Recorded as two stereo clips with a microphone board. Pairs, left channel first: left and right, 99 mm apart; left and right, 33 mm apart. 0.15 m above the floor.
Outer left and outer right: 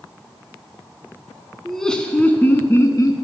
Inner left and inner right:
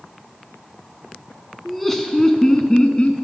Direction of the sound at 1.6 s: Centre (ahead or behind).